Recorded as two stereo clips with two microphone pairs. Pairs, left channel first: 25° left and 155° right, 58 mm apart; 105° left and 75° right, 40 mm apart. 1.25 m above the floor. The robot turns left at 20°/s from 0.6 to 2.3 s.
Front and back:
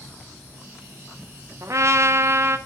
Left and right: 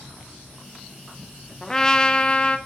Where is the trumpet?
175° right, 0.8 m; by 2.6 s 170° left, 0.8 m.